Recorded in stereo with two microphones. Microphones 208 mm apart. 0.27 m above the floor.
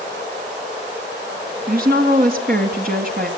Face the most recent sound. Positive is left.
turn(degrees=-50)  # may be behind; listen again after turning